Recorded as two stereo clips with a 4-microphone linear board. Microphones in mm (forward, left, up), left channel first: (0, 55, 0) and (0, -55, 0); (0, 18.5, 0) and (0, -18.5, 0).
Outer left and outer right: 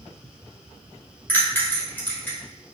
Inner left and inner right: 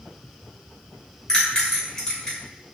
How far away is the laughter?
I don't hear laughter.